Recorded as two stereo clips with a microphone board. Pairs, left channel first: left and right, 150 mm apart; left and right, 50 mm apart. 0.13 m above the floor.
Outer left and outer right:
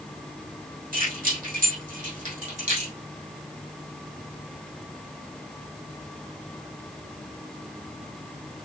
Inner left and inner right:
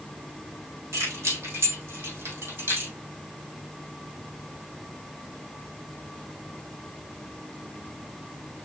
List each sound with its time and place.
0.9 s keys jangling: 70° right (ahead or behind), 3.5 m; by 2.9 s 50° right (ahead or behind), 3 m